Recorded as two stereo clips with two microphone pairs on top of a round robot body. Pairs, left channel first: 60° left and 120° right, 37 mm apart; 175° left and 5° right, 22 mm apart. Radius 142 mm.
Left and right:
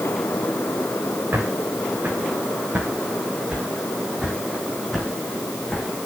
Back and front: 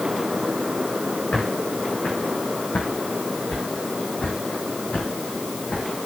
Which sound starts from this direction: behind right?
Footsteps, at 1.3 s.